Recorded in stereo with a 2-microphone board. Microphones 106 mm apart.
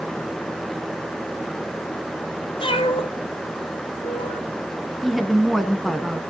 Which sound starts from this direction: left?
A cat meowing, at 2.6 s.